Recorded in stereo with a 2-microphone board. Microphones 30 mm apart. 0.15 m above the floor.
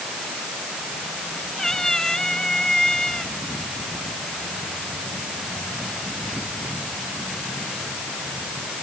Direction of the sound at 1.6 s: 20° left (ahead or behind).